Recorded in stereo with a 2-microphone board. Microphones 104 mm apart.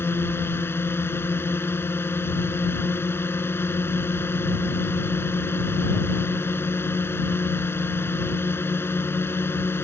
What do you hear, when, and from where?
0.0 s a drone: 25° left (ahead or behind)